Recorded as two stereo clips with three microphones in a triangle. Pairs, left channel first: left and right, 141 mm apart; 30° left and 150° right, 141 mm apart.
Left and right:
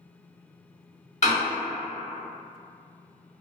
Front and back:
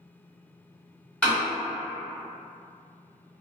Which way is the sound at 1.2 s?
110° left.